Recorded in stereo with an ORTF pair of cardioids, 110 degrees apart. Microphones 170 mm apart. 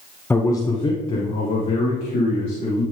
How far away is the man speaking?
About 0.7 m.